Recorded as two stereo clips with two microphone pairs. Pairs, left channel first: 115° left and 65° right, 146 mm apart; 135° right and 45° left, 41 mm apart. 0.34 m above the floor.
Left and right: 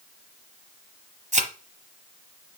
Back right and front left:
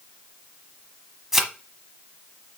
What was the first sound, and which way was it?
A thud, 35° right.